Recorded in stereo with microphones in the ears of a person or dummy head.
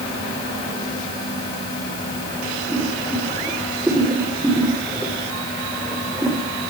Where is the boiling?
5° right (ahead or behind), 5 m.